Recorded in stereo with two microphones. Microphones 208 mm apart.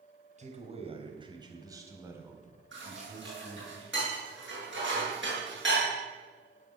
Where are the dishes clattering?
65° right (ahead or behind), 8 m.